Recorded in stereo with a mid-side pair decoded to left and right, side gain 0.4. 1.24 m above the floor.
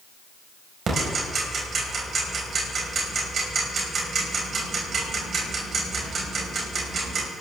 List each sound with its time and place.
0.9 s ticking: 55° right, 5 m